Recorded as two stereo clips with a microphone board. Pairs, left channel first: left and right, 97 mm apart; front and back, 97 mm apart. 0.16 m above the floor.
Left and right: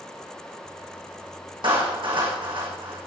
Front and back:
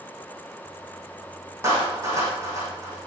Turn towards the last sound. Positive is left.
turn(degrees=-120)